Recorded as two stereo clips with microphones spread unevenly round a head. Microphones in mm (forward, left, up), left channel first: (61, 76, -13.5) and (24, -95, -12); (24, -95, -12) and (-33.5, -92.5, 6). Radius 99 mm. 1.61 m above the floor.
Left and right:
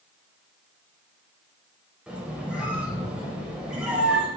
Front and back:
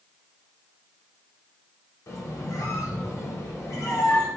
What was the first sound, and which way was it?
A squeak, 25° right.